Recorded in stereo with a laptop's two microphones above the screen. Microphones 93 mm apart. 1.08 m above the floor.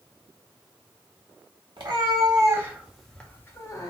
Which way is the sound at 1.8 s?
55° right (ahead or behind).